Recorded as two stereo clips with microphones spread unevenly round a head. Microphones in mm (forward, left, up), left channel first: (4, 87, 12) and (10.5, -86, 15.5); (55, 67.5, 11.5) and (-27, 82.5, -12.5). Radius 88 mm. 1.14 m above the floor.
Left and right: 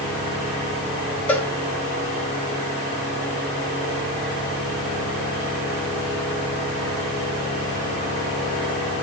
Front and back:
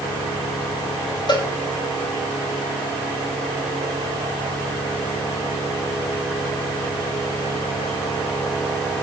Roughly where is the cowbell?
Ahead.